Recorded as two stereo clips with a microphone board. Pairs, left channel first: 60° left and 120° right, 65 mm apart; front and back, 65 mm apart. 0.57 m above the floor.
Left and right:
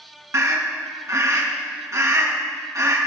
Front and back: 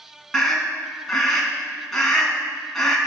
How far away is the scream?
About 4.5 m.